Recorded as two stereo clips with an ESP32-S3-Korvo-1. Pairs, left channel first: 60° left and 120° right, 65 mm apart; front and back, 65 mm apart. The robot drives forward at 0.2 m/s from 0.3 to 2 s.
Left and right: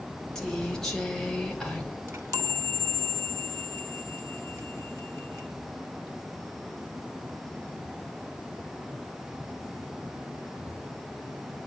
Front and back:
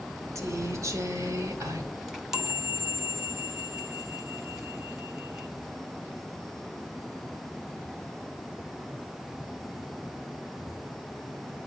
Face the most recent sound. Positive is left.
turn(degrees=-95)